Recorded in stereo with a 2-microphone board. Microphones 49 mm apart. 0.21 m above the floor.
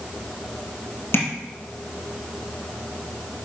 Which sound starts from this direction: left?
Tapping, at 1.1 s.